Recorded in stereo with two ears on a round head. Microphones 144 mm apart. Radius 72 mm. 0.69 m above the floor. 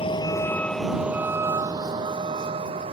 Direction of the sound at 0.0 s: 35° left (ahead or behind).